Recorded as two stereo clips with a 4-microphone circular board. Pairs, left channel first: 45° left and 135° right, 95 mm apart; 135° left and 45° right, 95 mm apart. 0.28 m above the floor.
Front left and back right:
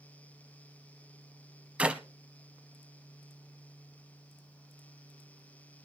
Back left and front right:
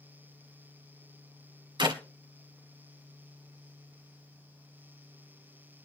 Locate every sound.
1.8 s a clap: 60° right, 1.3 m